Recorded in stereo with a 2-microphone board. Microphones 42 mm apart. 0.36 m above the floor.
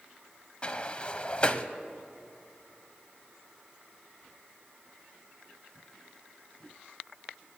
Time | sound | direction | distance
0.6 | a sliding door | 30° left (ahead or behind) | 0.7 m